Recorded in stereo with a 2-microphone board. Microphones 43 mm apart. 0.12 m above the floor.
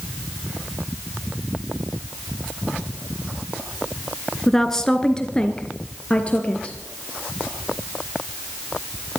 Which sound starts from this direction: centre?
A woman speaking, at 4.5 s.